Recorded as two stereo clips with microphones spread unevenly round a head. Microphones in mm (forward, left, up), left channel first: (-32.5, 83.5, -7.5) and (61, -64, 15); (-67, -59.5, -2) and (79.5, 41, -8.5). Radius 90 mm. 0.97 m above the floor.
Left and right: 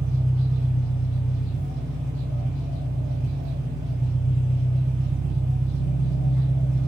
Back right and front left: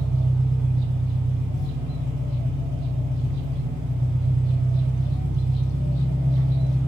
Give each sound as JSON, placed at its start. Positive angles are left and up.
{"t": 0.0, "sound": "an engine running", "azimuth_deg": 35, "distance_m": 1.6}